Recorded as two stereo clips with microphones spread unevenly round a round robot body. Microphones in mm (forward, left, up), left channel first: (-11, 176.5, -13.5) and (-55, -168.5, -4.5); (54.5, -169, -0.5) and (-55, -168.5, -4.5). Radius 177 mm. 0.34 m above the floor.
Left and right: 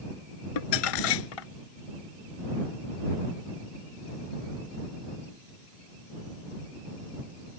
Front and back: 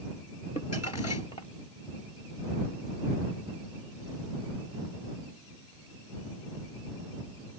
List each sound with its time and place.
0.6 s crumpling: 60° left